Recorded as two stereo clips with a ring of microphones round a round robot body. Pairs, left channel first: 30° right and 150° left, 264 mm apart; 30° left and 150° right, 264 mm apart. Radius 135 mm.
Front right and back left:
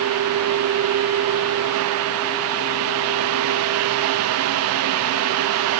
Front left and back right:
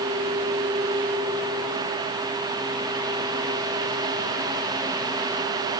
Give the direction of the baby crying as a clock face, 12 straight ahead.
I don't hear a baby crying.